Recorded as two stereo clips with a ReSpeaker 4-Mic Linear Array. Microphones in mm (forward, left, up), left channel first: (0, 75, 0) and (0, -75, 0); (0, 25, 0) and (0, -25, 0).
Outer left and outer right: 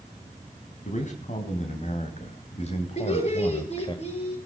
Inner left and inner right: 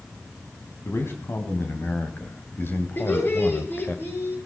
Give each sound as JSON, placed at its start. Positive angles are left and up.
{"t": 0.8, "sound": "a man speaking", "side_deg": 55, "distance_m": 3.0}
{"t": 3.0, "sound": "laughter", "side_deg": 50, "distance_m": 6.5}